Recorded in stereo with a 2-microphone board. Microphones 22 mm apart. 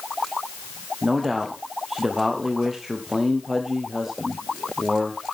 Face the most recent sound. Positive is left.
turn(degrees=-15)  # may be behind; listen again after turning